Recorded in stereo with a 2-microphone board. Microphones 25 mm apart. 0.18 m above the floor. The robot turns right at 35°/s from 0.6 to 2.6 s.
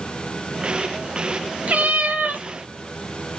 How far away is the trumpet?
I don't hear a trumpet.